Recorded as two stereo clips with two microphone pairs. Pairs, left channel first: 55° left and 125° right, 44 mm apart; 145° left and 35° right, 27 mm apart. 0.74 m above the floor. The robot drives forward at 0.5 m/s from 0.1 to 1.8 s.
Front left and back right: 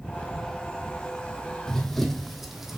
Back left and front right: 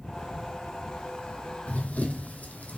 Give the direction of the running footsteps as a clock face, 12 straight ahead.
8 o'clock.